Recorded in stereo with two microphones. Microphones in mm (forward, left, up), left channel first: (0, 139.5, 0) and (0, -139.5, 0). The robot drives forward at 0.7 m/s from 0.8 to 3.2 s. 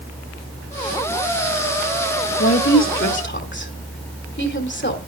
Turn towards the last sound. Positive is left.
turn(degrees=40)  # may be behind; listen again after turning